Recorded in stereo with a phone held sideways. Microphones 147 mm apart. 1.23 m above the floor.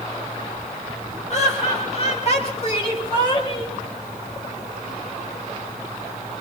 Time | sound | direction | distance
1.3 | laughter | 50° left (ahead or behind) | 8 m